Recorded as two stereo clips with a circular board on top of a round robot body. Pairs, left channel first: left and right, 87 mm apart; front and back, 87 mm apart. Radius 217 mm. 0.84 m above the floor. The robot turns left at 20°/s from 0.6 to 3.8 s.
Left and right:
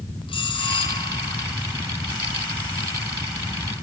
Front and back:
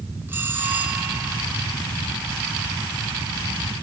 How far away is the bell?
About 6 m.